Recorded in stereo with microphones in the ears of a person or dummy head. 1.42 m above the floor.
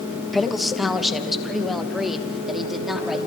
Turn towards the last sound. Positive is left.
turn(degrees=-5)  # may be behind; listen again after turning